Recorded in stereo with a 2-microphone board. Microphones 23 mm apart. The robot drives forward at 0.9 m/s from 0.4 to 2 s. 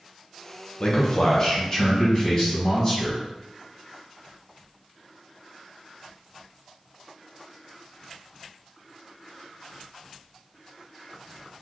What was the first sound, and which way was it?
A man speaking, 35° left (ahead or behind).